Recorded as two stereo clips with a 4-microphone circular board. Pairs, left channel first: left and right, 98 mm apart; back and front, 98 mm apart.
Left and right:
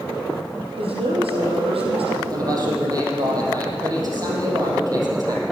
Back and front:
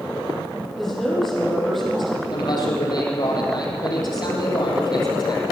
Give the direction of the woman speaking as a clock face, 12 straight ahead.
3 o'clock.